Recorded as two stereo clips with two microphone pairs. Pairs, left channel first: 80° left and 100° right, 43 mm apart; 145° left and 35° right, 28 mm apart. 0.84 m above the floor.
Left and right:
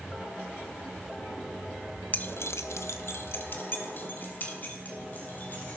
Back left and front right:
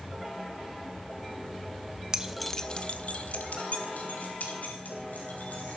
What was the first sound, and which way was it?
Keys jangling, 30° left.